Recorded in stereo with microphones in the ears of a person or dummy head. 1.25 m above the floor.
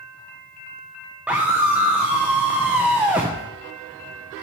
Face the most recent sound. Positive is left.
turn(degrees=-5)  # may be behind; listen again after turning